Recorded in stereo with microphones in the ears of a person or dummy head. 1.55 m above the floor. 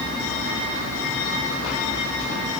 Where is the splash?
I don't hear a splash.